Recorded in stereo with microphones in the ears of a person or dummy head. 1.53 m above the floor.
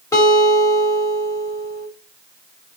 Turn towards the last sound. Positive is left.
turn(degrees=15)  # may be behind; listen again after turning